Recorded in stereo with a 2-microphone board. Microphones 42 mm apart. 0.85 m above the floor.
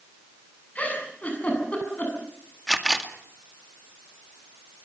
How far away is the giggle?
About 8 m.